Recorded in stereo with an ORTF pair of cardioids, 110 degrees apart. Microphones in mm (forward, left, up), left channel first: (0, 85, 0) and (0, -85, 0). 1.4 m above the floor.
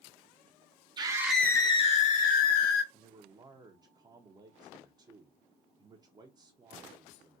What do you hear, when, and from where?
1.0 s a scream: 25° right, 0.7 m; by 2.8 s 65° left, 1.3 m
2.9 s a man speaking: 25° right, 0.6 m